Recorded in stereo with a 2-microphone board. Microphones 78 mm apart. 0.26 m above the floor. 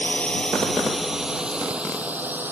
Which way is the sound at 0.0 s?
15° left (ahead or behind).